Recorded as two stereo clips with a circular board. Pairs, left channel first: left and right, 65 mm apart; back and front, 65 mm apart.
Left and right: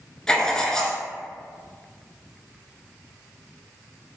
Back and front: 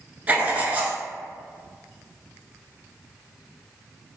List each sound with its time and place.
0.3 s writing: 20° left, 0.7 m